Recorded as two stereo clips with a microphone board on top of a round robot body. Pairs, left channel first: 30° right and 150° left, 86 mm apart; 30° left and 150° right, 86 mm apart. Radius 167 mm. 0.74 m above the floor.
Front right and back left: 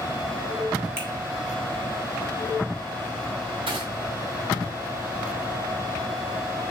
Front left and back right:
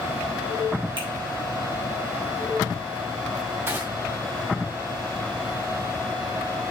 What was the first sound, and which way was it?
A finger snap, 145° right.